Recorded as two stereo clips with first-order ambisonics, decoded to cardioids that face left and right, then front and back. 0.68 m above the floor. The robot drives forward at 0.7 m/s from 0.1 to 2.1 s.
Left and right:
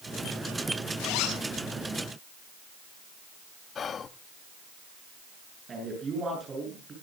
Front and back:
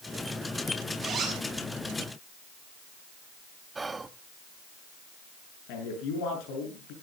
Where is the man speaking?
20° right, 8 m.